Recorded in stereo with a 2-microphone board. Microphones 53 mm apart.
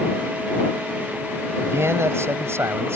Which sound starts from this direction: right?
A man speaking, at 1.6 s.